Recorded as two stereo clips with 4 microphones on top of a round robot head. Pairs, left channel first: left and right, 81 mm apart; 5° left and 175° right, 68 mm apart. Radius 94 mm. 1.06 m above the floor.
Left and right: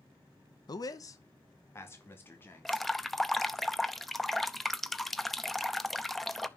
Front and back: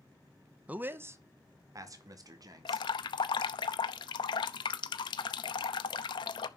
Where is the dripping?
5° left, 0.7 m.